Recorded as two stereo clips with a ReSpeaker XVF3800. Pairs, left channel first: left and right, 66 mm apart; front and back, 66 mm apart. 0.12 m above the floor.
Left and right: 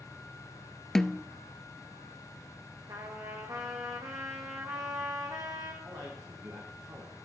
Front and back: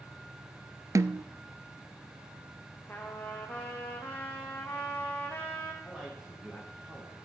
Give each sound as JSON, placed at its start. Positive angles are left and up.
{"t": 0.9, "sound": "a snare drum", "azimuth_deg": 170, "distance_m": 0.5}
{"t": 2.9, "sound": "a trumpet", "azimuth_deg": -65, "distance_m": 3.0}
{"t": 5.8, "sound": "a man speaking", "azimuth_deg": -105, "distance_m": 6.5}